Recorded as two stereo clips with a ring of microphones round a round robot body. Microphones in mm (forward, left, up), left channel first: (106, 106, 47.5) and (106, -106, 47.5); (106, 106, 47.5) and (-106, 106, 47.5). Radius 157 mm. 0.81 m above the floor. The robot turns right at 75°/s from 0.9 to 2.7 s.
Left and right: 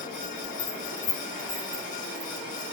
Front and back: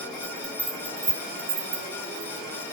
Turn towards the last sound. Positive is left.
turn(degrees=-95)